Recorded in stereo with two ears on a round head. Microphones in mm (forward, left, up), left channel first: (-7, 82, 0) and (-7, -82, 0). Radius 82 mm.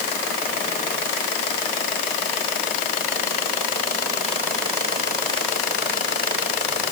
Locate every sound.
Only background noise.